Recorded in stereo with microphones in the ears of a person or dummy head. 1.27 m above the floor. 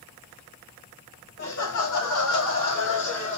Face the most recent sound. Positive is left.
turn(degrees=85)